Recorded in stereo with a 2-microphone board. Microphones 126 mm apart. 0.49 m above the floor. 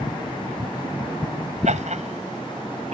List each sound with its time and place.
1.6 s laughter: 70° right (ahead or behind); by 2.9 s 60° right (ahead or behind)